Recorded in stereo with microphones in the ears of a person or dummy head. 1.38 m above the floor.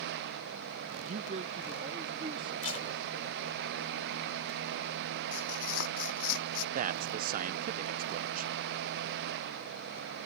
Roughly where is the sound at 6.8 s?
Right.